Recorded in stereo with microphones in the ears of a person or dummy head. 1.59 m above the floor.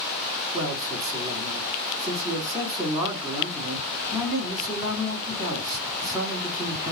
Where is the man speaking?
10° right (ahead or behind), 3.5 m.